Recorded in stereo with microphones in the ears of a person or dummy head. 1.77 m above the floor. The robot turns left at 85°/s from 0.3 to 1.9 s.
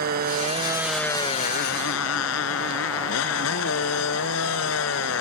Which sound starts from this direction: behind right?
A motorcycle, at 0.0 s.